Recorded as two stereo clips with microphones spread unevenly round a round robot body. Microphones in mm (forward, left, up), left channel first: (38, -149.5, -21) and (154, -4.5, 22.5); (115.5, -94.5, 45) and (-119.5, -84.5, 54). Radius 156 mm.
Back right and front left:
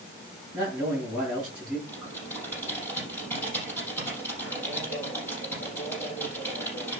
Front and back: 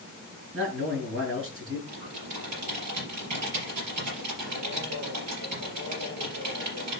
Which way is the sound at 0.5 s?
130° left.